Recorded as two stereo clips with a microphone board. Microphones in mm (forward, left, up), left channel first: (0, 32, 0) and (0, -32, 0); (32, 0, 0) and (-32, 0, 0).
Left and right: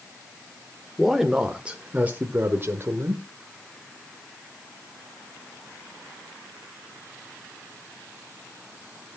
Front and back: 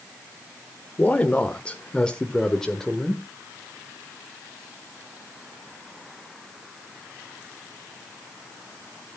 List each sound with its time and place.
1.0 s a man speaking: straight ahead, 1.2 m; by 3.2 s 85° right, 1.6 m